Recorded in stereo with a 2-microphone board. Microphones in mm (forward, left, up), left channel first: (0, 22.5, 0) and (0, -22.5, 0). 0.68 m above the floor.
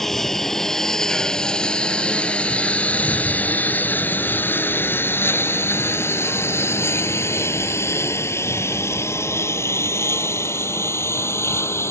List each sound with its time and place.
0.0 s a lawn mower: 5° left (ahead or behind); by 11.9 s 75° left (ahead or behind)